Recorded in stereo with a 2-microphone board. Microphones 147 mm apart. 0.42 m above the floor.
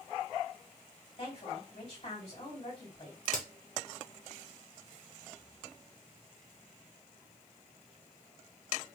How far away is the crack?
About 0.7 m.